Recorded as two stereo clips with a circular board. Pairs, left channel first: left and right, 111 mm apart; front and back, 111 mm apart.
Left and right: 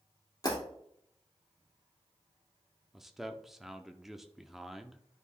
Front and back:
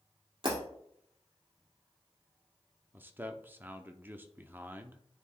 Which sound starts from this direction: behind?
A man speaking, at 2.9 s.